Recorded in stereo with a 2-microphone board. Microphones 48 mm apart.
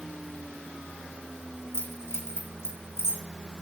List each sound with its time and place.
1.7 s keys jangling: 60° left (ahead or behind), 2.5 m